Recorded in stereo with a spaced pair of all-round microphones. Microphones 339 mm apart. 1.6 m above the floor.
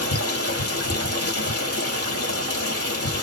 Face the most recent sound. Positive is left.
turn(degrees=45)  # may be behind; listen again after turning